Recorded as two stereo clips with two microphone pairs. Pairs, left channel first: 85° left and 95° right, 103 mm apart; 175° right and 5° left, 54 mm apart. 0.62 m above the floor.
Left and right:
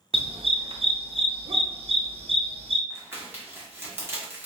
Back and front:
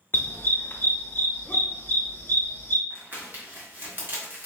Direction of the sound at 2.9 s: 35° right.